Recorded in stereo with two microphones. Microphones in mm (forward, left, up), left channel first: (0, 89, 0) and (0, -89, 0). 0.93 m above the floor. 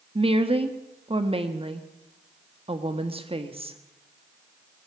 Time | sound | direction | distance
0.1 | a woman speaking | 30° right (ahead or behind) | 1.3 m